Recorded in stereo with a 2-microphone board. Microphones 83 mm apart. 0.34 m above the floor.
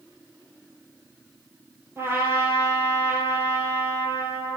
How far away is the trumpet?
About 2 m.